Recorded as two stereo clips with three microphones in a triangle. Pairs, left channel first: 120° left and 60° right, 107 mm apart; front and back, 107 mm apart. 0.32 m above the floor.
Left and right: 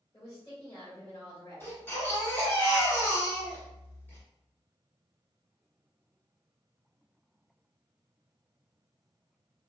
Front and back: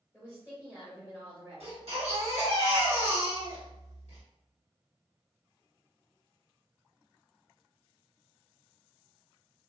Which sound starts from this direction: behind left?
A woman speaking, at 0.1 s.